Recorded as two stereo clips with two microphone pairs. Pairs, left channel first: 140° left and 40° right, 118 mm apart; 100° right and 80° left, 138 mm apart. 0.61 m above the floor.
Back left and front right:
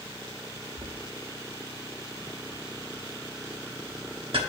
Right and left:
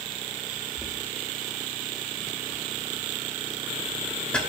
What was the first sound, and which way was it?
Knocking, 25° right.